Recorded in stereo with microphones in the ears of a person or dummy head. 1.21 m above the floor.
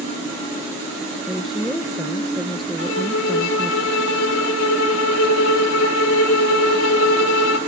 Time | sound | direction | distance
1.3 | a woman speaking | 5° left (ahead or behind) | 0.8 m
2.8 | a violin | 75° left (ahead or behind) | 1.6 m